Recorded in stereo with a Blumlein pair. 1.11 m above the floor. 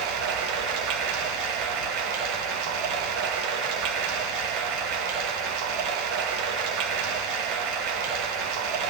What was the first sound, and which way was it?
Running water, 40° right.